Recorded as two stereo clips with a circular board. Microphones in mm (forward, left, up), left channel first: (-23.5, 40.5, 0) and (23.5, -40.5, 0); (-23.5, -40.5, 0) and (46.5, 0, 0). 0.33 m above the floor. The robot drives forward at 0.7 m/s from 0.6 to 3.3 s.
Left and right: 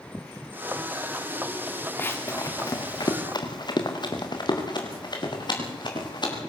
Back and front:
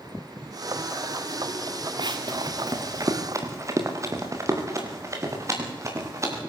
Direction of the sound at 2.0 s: 50° left.